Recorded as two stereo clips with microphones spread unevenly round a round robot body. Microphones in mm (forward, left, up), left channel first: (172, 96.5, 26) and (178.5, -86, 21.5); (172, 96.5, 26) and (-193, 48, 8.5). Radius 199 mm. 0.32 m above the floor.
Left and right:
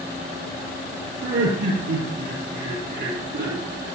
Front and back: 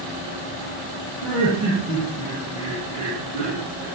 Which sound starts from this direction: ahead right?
Laughter, at 1.2 s.